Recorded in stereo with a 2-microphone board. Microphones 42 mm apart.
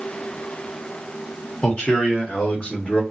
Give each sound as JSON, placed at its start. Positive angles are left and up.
{"t": 1.6, "sound": "a man speaking", "side_deg": 25, "distance_m": 1.5}